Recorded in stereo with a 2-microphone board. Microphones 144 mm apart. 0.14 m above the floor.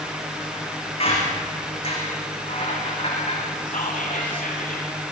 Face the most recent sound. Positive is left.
turn(degrees=70)  # may be behind; listen again after turning